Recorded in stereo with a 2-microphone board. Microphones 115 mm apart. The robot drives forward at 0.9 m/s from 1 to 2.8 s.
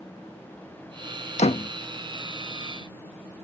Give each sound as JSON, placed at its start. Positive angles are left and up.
{"t": 1.4, "sound": "a door slam", "side_deg": 75}